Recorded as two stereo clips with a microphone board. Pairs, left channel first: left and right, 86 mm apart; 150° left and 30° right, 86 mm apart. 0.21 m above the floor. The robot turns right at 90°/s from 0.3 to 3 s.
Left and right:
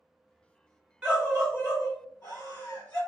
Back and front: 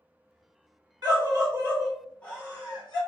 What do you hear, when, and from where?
1.0 s a scream: 20° right, 1.5 m; by 3.0 s 155° left, 1.5 m